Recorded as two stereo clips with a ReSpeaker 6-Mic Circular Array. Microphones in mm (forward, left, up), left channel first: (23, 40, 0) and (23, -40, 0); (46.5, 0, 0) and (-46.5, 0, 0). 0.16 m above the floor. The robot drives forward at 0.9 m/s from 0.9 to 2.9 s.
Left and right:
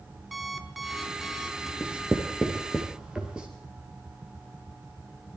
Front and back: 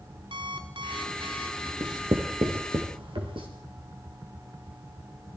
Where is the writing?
160° right, 2.0 m; by 3.5 s 170° right, 3 m.